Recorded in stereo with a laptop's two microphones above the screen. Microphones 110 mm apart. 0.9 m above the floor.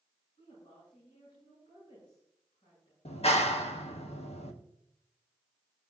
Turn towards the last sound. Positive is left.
turn(degrees=80)